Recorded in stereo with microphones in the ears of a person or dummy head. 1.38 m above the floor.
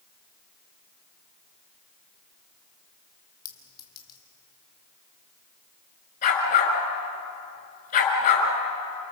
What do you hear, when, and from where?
3.5 s a clink: 25° left (ahead or behind), 1.8 m
6.2 s a dog barking: 45° left (ahead or behind), 5.5 m